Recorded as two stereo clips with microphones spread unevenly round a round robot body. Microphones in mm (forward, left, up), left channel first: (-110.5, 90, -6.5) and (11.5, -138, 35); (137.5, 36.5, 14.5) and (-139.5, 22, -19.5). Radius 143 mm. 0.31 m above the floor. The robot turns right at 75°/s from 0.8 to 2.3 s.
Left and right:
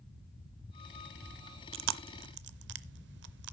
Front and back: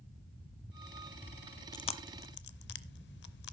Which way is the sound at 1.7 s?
75° right.